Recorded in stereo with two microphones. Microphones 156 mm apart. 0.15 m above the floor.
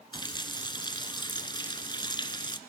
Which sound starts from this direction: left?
A running tap, at 0.1 s.